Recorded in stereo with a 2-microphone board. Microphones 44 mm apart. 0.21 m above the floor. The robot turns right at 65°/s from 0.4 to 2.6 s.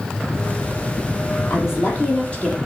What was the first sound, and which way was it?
A woman speaking, 100° left.